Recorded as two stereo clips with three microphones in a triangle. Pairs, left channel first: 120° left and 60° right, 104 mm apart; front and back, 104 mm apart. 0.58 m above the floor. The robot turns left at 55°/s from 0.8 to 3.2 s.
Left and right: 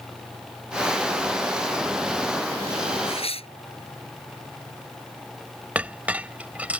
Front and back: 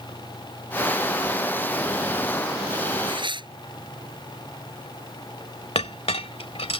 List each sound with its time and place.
3.1 s tearing paper: 150° left; by 3.5 s 140° left
5.8 s a clink: 15° left